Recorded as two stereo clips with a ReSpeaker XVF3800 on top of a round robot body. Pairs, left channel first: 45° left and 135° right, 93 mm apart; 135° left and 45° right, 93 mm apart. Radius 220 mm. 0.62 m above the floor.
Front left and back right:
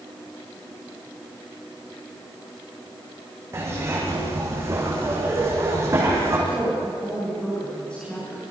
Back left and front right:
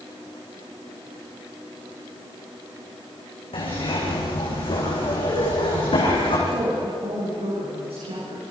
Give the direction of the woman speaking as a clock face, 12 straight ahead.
1 o'clock.